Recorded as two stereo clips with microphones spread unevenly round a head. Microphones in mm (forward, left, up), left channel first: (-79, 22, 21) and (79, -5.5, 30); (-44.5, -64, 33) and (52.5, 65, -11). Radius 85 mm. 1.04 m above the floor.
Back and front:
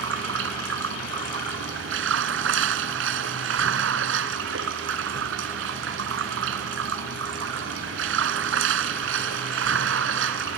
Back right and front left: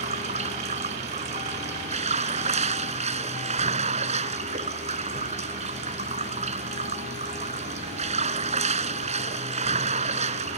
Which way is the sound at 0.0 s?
5° right.